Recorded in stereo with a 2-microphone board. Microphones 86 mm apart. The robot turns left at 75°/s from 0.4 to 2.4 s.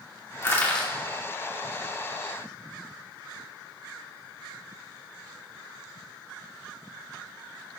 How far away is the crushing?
About 2 m.